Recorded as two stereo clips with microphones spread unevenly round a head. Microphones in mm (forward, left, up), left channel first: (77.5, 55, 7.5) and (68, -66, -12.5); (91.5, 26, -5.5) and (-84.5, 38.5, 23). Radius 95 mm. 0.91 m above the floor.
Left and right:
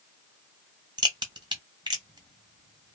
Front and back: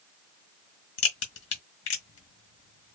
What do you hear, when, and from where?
1.0 s a crack: 40° right, 1.4 m